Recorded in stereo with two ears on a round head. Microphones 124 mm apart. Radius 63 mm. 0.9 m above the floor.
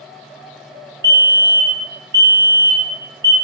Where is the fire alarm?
25° right (ahead or behind), 1.7 m.